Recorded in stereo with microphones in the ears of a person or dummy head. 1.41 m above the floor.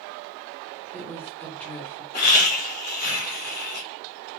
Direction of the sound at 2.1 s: 45° left (ahead or behind).